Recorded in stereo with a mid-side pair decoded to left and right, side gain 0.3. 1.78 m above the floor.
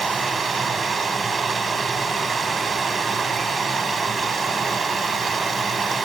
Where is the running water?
65° right, 4 m.